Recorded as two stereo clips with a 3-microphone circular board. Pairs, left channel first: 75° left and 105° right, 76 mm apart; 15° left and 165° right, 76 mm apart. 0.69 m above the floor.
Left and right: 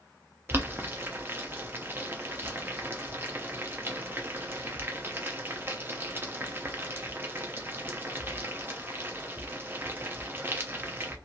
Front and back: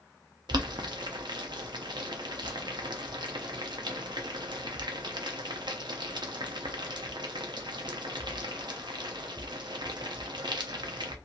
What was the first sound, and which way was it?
Boiling, 165° right.